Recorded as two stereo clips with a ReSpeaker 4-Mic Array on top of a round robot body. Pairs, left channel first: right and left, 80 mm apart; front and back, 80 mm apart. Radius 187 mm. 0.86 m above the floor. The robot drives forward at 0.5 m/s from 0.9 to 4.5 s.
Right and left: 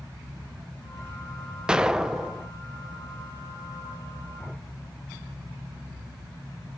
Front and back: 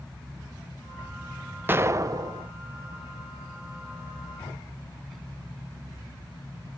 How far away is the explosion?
About 0.6 m.